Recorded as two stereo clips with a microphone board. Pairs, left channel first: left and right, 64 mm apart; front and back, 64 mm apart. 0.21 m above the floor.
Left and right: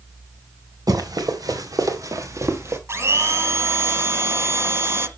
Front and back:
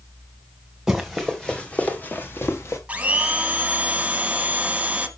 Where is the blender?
115° right, 1.3 m.